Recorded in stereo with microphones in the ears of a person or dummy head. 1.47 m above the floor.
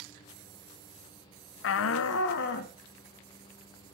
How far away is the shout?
About 0.6 m.